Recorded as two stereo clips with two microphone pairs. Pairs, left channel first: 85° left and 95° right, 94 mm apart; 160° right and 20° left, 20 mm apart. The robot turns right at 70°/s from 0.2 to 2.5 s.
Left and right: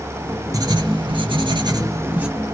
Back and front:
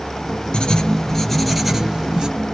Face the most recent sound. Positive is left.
turn(degrees=-5)